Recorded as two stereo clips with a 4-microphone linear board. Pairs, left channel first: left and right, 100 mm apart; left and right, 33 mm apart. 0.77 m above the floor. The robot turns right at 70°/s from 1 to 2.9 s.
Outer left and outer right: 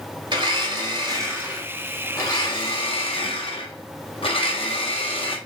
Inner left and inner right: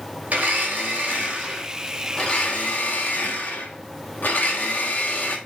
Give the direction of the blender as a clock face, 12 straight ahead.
2 o'clock.